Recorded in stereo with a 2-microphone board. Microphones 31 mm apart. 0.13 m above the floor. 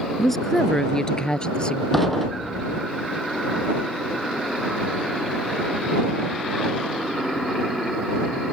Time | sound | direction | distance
0.2 | a woman speaking | 5° left (ahead or behind) | ?
1.9 | dishes clattering | centre (ahead or behind) | ?